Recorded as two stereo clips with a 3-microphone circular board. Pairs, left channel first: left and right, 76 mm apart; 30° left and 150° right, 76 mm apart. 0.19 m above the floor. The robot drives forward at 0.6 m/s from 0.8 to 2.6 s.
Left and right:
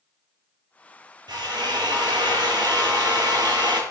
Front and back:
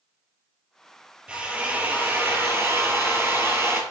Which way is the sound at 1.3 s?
75° right.